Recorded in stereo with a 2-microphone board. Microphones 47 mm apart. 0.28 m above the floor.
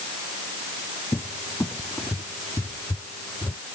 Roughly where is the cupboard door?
Left.